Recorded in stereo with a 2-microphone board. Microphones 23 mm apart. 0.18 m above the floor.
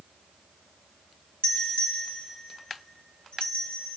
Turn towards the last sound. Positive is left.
turn(degrees=60)  # may be behind; listen again after turning